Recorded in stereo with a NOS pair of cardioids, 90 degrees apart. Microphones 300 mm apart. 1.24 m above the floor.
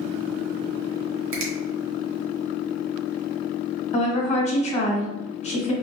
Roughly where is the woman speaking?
Ahead.